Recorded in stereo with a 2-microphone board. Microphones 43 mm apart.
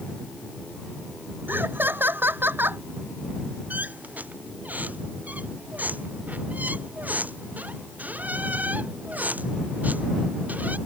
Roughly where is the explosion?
I don't hear an explosion.